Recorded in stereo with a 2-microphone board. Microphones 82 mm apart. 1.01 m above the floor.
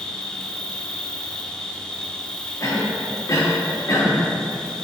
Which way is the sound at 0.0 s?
10° left (ahead or behind).